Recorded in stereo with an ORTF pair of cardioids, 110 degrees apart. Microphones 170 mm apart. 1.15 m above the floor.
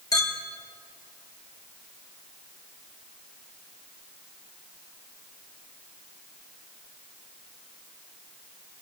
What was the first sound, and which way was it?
A clink, 20° left.